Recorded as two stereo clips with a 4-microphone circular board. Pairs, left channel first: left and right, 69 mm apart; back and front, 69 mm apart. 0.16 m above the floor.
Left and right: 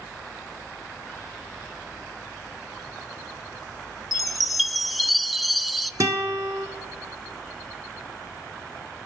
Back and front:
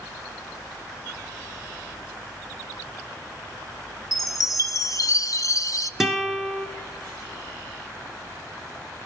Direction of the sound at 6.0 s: 80° right.